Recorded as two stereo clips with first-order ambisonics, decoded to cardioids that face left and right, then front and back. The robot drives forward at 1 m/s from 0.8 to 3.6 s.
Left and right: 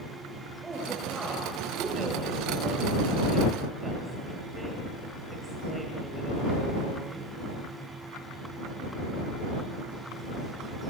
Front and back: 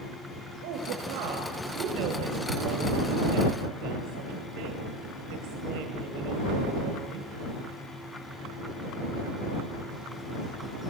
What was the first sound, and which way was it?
A woman speaking, 170° right.